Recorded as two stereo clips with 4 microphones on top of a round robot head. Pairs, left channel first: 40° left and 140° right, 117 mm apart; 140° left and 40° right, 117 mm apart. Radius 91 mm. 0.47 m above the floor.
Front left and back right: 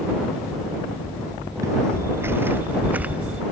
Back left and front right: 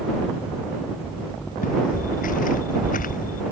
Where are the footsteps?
155° left; by 3.4 s 140° left.